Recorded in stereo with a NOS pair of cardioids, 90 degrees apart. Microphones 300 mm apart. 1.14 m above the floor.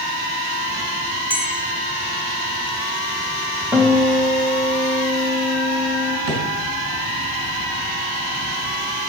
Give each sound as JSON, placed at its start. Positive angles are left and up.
{"t": 1.3, "sound": "a bell", "azimuth_deg": -5, "distance_m": 1.3}
{"t": 3.7, "sound": "a guitar", "azimuth_deg": -5, "distance_m": 2.0}
{"t": 6.3, "sound": "a drawer", "azimuth_deg": -50, "distance_m": 2.5}